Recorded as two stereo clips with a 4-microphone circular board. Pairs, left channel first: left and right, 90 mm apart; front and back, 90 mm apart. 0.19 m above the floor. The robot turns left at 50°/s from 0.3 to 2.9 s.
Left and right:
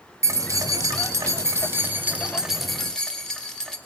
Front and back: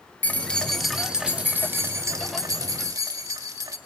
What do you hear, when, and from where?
0.2 s keys jangling: 60° right, 0.8 m; by 3.8 s 170° left, 0.8 m